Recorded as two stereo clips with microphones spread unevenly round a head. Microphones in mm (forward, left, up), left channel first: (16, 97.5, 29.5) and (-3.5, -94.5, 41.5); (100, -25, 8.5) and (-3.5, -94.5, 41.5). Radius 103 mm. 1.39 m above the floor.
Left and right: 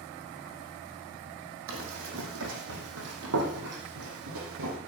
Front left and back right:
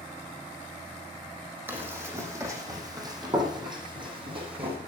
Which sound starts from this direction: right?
Running footsteps, at 1.7 s.